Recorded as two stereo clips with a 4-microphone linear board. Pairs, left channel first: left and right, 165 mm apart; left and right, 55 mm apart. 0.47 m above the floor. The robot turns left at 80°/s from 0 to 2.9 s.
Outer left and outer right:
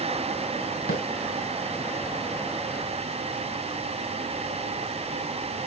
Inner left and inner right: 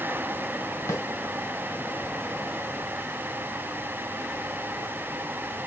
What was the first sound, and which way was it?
A snare drum, 80° left.